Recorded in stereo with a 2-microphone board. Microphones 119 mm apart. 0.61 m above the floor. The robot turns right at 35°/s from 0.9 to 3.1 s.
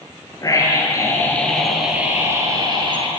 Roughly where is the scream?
Behind left.